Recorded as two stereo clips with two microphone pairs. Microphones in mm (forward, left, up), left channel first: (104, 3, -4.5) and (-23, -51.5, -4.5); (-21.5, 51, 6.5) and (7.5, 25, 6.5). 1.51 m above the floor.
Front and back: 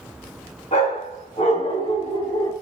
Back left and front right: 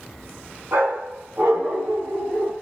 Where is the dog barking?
15° right, 4.5 m; by 2.5 s 25° right, 5 m.